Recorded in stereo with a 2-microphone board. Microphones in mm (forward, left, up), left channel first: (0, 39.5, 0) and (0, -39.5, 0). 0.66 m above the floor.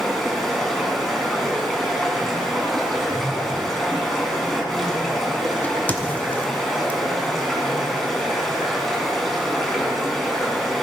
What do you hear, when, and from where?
0.0 s running water: 5° left (ahead or behind), 2.5 m
2.9 s a whoosh: 40° left (ahead or behind), 1.3 m
5.6 s a crack: 25° left (ahead or behind), 1.0 m